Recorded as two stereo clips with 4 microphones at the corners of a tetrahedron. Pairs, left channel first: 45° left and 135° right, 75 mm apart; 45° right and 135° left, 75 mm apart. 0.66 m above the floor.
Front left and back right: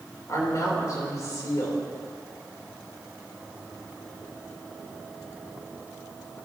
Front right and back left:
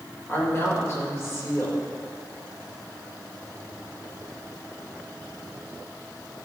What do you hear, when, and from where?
0.3 s a woman speaking: 5° left, 2.5 m